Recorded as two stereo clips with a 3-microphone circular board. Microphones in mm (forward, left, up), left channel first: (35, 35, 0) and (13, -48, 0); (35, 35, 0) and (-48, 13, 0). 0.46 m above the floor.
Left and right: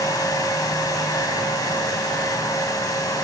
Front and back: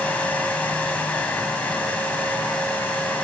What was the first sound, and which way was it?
Only background noise.